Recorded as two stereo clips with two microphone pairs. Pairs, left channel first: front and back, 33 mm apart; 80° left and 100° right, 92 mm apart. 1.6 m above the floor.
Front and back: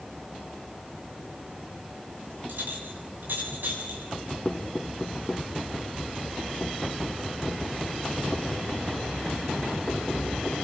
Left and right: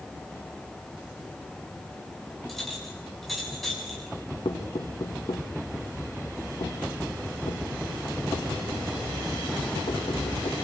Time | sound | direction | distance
2.5 | a clink | 165° left | 7 m
4.5 | knocking | 70° left | 2 m